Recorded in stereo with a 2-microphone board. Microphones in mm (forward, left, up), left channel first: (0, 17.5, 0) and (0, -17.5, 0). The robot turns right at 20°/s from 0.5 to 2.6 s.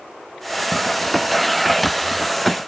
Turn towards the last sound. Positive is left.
No sound to turn to.